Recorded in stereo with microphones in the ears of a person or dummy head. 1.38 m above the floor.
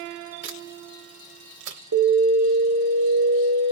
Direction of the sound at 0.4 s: 65° right (ahead or behind).